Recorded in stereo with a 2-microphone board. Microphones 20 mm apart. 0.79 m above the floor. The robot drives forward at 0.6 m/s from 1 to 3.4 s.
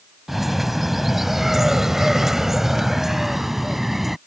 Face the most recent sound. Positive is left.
turn(degrees=-10)  # may be behind; listen again after turning